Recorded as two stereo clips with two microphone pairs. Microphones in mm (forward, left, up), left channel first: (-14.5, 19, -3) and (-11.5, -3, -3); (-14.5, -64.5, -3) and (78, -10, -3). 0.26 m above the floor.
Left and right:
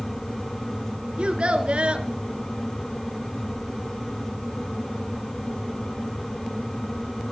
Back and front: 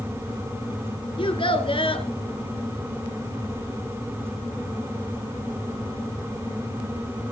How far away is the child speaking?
About 3 m.